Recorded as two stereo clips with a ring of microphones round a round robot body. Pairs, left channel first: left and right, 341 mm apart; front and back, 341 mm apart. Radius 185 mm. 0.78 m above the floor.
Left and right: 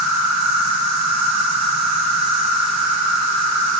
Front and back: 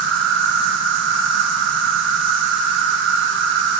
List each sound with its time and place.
0.0 s an insect: 125° right, 0.9 m